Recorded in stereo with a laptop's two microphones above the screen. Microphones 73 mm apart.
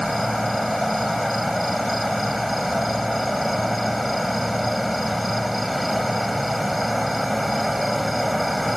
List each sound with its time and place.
0.0 s an insect: centre (ahead or behind)